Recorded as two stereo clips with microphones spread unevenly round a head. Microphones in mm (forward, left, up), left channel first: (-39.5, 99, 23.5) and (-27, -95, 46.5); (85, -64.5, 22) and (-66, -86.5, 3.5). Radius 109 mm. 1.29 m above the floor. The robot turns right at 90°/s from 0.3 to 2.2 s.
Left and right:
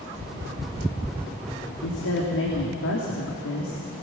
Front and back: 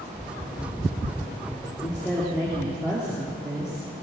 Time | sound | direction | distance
1.8 | a woman speaking | 70° left | 3 m